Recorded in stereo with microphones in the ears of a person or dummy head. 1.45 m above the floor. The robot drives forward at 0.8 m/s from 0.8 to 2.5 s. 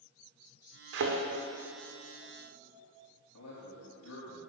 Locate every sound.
0.9 s a thud: 60° right (ahead or behind), 1.7 m; by 1.2 s 55° right (ahead or behind), 1.8 m
3.3 s a man speaking: 85° left, 3.5 m